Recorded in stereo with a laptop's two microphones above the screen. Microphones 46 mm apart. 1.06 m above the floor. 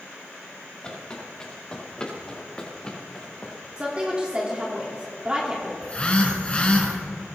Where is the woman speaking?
25° right (ahead or behind), 3 m.